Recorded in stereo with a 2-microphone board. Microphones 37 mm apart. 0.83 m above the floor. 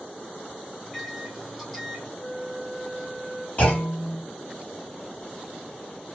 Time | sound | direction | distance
0.8 | a microwave | 5° left (ahead or behind) | 1.1 m
2.2 | a flute | 30° left (ahead or behind) | 0.5 m
3.6 | a clunk | 40° left (ahead or behind) | 2 m